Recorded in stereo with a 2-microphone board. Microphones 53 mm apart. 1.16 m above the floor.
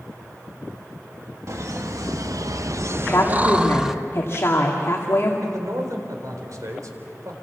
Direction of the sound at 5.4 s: 85° right.